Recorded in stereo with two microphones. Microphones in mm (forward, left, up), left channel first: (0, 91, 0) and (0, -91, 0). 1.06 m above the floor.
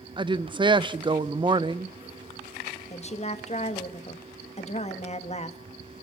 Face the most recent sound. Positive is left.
turn(degrees=35)  # may be behind; listen again after turning